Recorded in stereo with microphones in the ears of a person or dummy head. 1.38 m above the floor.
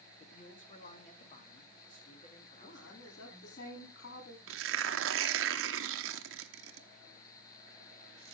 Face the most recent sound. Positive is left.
turn(degrees=-70)  # may be behind; listen again after turning